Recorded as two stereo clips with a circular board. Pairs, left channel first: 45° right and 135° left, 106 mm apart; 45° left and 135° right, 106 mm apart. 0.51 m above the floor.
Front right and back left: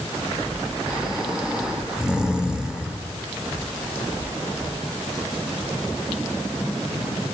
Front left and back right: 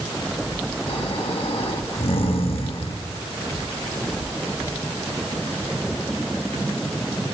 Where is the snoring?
55° left, 0.9 m.